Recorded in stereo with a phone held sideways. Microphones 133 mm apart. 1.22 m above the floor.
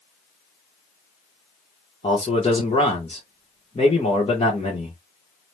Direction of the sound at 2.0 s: 45° left (ahead or behind).